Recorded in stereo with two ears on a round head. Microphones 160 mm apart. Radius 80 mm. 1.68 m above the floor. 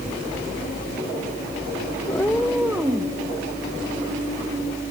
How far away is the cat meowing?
About 0.9 m.